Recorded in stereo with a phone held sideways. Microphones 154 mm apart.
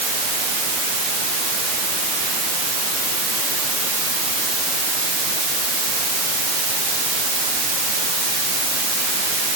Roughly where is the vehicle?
I don't hear a vehicle.